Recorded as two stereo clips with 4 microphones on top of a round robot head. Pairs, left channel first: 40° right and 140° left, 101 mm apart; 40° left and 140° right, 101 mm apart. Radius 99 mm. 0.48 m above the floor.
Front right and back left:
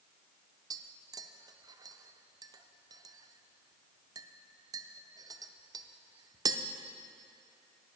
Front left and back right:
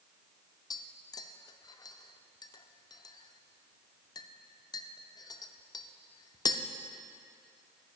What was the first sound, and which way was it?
Tapping, 90° left.